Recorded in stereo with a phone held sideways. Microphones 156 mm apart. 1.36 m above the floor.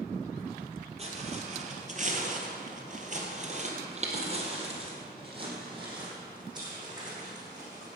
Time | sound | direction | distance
1.0 | footsteps | 40° right (ahead or behind) | 2.5 m